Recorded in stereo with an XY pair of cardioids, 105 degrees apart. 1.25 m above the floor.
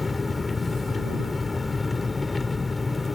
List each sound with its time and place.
0.0 s an engine running: 25° left